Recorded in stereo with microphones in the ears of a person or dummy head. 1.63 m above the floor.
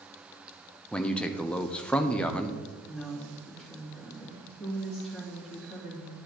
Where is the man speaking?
5° left (ahead or behind), 0.7 m.